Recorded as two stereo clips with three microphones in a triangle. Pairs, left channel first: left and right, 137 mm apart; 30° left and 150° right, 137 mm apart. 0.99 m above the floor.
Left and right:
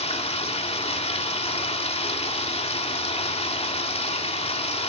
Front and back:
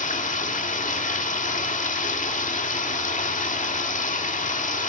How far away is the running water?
About 1.8 m.